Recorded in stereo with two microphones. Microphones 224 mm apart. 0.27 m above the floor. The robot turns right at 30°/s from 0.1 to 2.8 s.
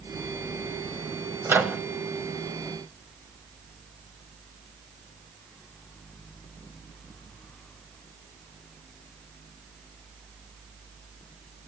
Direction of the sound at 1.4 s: 10° right (ahead or behind).